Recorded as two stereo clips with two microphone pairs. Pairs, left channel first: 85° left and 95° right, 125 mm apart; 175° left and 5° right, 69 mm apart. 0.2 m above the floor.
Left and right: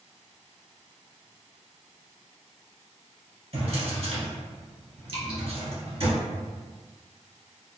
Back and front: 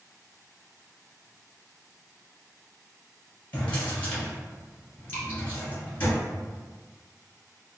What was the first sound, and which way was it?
A drawer, 120° right.